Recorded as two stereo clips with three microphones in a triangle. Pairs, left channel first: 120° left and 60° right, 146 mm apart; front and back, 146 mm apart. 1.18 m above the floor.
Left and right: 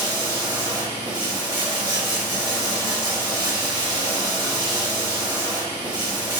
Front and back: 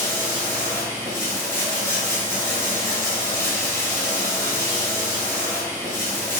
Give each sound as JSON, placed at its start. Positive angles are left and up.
{"t": 0.0, "sound": "running water", "azimuth_deg": -60, "distance_m": 1.0}